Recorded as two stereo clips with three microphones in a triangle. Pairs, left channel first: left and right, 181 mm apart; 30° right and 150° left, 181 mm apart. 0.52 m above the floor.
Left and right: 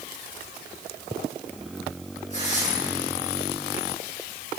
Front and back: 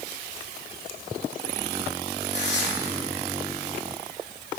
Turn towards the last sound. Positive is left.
turn(degrees=-40)